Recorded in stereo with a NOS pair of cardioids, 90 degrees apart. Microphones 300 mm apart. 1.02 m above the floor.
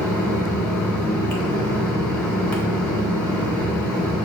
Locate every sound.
0.0 s a fan: 5° left, 1.6 m